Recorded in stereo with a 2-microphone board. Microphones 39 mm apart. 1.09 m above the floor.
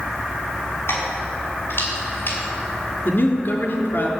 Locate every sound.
0.9 s keys jangling: 80° left, 6.5 m; by 2.4 s 75° left (ahead or behind), 5 m
3.0 s a man speaking: 65° left (ahead or behind), 3 m